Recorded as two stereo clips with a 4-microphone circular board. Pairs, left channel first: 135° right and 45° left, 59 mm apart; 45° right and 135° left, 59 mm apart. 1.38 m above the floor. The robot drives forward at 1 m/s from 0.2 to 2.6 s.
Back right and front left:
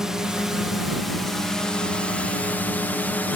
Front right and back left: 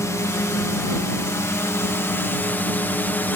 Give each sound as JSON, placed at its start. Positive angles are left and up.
{"t": 0.0, "sound": "a drone", "azimuth_deg": -35}